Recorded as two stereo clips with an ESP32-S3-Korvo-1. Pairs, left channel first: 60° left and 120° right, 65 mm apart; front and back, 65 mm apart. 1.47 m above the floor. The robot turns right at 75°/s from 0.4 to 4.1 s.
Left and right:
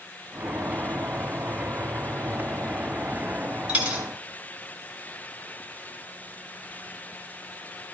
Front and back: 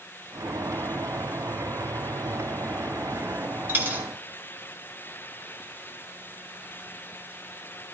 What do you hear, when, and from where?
3.7 s a dropped coin: 175° right, 1.3 m; by 4.0 s 150° right, 1.3 m